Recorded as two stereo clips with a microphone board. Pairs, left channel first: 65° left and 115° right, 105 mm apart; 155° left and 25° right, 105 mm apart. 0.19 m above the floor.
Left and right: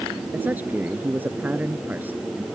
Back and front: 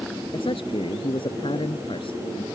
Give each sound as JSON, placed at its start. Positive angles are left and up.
{"t": 0.3, "sound": "a man speaking", "azimuth_deg": 175}